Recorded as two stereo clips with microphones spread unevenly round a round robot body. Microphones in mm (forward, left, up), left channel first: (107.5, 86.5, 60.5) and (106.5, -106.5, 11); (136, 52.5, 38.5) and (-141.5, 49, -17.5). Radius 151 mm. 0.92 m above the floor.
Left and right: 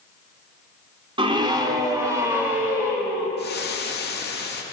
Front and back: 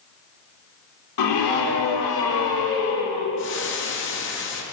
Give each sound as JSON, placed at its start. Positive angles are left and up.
{"t": 1.2, "sound": "a scream", "azimuth_deg": -25, "distance_m": 2.5}
{"t": 3.4, "sound": "frying", "azimuth_deg": 50, "distance_m": 1.8}